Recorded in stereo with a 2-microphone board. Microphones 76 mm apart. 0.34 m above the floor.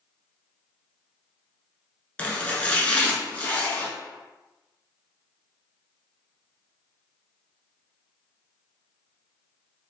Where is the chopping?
20° left (ahead or behind), 1.0 m.